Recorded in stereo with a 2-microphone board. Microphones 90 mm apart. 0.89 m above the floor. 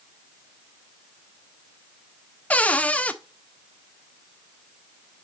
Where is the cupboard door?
15° left (ahead or behind), 0.5 m.